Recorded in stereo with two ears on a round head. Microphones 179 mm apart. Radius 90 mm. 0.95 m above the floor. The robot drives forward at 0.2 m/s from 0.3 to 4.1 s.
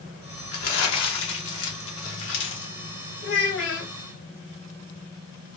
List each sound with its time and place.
0.5 s crumpling: 80° left, 1.2 m; by 2.7 s 65° left (ahead or behind), 1.3 m
3.2 s a child speaking: 65° left (ahead or behind), 1.6 m; by 3.9 s 60° left (ahead or behind), 1.7 m